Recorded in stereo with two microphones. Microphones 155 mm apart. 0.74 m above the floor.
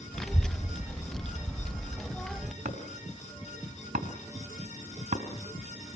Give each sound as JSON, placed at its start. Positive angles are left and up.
{"t": 0.1, "sound": "a child speaking", "side_deg": 5, "distance_m": 0.7}
{"t": 2.6, "sound": "chopping", "side_deg": -50, "distance_m": 3.0}